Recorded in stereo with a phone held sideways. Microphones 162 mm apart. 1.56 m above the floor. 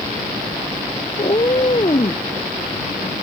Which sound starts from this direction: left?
A cat meowing, at 1.2 s.